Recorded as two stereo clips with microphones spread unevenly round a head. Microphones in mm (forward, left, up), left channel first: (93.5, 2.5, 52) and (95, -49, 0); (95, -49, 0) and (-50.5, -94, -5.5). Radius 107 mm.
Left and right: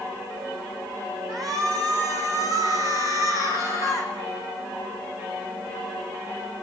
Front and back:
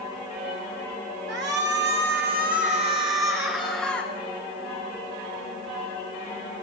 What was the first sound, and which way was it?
A shout, straight behind.